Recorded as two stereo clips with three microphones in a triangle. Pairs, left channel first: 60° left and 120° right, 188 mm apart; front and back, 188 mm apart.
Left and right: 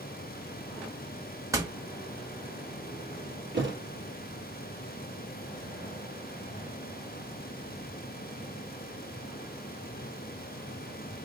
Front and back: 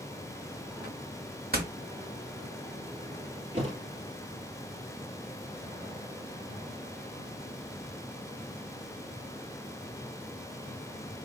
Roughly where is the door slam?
Behind.